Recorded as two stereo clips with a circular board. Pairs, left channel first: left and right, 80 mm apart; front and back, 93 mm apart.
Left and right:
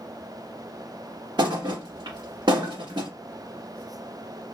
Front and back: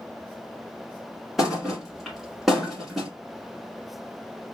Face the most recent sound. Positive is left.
turn(degrees=-90)